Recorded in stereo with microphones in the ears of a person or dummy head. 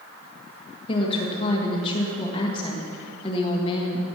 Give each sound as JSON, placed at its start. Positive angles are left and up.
{"t": 0.9, "sound": "a woman speaking", "side_deg": 35, "distance_m": 1.8}